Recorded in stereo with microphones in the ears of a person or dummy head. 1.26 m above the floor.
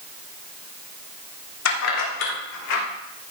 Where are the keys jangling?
80° left, 2.5 m; by 2.8 s 85° left, 4 m.